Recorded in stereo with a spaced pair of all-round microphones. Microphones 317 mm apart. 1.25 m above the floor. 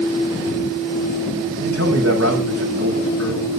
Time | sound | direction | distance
1.6 | a man speaking | 50° right (ahead or behind) | 5 m